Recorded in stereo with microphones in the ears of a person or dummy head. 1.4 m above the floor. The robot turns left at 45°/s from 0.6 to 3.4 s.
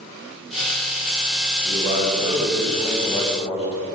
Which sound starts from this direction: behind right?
A man speaking, at 1.6 s.